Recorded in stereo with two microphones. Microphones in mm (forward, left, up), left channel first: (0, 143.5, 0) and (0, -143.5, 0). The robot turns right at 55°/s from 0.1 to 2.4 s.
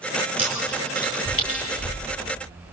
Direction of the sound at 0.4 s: 5° right (ahead or behind).